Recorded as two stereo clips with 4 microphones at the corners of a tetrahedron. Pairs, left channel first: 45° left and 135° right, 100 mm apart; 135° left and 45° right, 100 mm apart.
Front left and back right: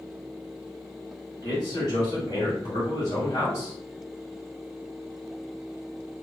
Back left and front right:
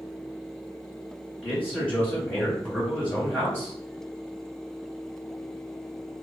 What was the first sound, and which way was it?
A man speaking, 65° left.